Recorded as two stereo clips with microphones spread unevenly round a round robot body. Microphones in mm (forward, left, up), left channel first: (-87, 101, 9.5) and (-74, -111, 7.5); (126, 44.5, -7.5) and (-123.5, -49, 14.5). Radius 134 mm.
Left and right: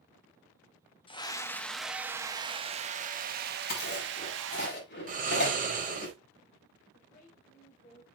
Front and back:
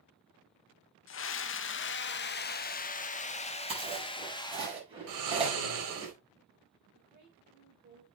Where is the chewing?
130° left, 5.5 m.